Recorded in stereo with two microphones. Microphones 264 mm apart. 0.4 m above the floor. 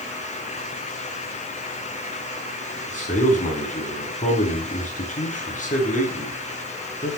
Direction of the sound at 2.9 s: 30° left (ahead or behind).